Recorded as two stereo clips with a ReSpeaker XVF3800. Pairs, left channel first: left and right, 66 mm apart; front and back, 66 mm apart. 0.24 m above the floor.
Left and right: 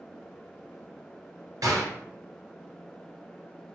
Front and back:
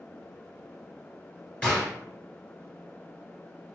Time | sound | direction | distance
1.6 | a gunshot | 75° right | 1.6 m